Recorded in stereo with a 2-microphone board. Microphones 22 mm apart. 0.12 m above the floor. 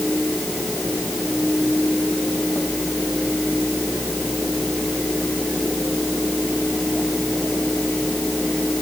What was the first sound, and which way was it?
Only background noise.